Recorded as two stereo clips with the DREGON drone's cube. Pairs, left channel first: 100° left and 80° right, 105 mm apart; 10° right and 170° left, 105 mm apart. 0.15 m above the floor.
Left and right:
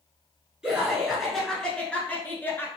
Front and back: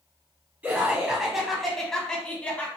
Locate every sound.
0.6 s laughter: 145° right, 1.2 m; by 2.7 s 50° left, 1.3 m